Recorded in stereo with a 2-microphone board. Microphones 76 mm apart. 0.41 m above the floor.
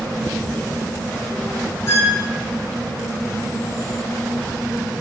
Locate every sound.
1.9 s a squeak: 40° left (ahead or behind), 1.0 m